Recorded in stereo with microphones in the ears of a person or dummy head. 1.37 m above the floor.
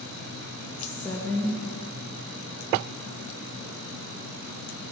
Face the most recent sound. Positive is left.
turn(degrees=10)  # may be behind; listen again after turning